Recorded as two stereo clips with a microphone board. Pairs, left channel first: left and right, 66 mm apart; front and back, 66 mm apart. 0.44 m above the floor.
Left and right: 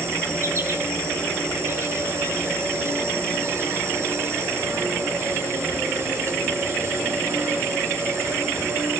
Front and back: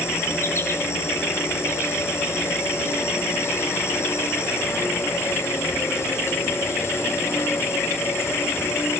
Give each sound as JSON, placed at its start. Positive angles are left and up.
{"t": 0.0, "sound": "an insect", "azimuth_deg": -45, "distance_m": 1.5}